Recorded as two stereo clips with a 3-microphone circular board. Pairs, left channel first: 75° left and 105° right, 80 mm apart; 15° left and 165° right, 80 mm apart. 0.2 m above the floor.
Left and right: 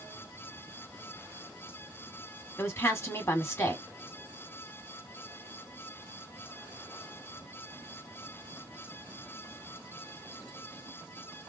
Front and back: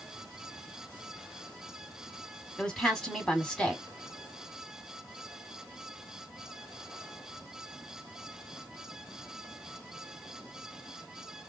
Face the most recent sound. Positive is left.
turn(degrees=85)